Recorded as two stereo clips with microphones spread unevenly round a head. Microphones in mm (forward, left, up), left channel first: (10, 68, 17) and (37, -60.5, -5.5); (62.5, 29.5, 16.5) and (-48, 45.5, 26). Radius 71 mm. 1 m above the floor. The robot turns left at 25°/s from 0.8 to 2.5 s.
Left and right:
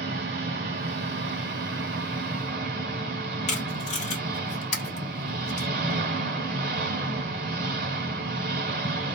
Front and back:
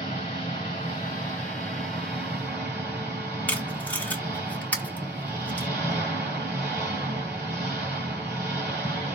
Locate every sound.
0.0 s an engine running: 70° right, 2.0 m; by 9.2 s 115° right, 2.0 m
3.5 s tape being pulled: 70° left, 1.2 m